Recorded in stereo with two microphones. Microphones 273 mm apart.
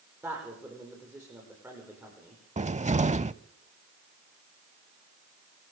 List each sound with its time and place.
0.2 s a man speaking: 10° right (ahead or behind), 10 m
2.6 s a cupboard door: 30° right (ahead or behind), 0.5 m